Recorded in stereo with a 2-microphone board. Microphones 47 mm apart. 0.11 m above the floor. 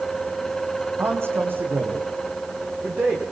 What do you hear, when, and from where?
1.0 s a man speaking: 50° right (ahead or behind), 5 m; by 3.2 s 30° right (ahead or behind), 7.5 m